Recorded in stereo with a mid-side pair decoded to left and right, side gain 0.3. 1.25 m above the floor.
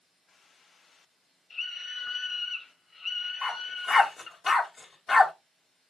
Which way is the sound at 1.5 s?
45° left.